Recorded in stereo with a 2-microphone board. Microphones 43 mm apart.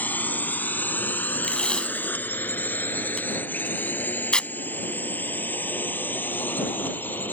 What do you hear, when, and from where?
0.0 s a drone: 45° left (ahead or behind); by 7.3 s 50° left (ahead or behind)
1.4 s tape being pulled: 20° left (ahead or behind)